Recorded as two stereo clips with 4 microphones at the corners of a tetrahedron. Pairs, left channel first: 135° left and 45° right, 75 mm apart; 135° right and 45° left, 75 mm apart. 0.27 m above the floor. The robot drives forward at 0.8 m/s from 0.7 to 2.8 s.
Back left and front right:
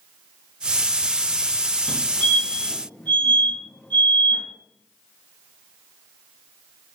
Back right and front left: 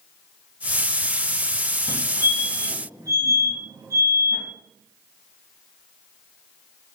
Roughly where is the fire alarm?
Ahead left.